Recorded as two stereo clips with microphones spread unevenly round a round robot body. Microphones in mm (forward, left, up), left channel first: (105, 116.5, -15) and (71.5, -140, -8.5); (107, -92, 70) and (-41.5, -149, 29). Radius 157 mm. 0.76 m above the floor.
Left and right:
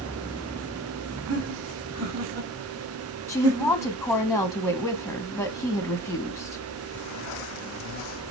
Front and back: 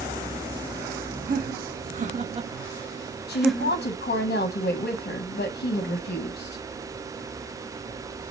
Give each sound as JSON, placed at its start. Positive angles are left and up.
{"t": 1.3, "sound": "laughter", "azimuth_deg": -145, "distance_m": 1.3}
{"t": 3.3, "sound": "a woman speaking", "azimuth_deg": -5, "distance_m": 0.8}